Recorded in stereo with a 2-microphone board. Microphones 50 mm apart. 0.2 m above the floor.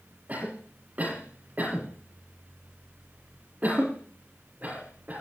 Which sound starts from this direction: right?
A cough, at 0.3 s.